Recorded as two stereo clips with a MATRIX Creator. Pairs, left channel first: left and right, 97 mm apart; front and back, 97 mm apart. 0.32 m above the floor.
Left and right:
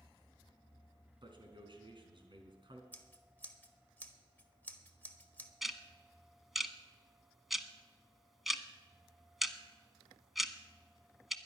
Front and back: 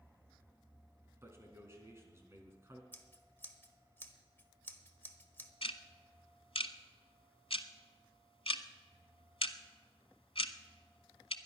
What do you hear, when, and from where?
1.2 s a man speaking: 120° right, 3.5 m
2.9 s scissors: 40° left, 1.2 m
5.6 s ticking: straight ahead, 0.9 m